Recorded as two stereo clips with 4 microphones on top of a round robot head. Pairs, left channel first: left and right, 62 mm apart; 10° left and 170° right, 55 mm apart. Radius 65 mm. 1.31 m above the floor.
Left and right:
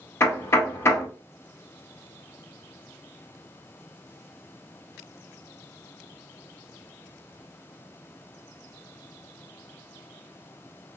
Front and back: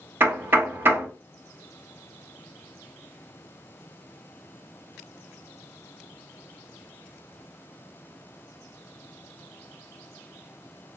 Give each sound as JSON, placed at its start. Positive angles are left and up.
{"t": 0.2, "sound": "knocking", "azimuth_deg": 140, "distance_m": 1.0}